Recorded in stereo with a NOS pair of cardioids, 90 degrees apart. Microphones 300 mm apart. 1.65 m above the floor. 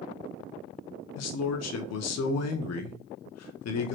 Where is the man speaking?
55° left, 0.8 m.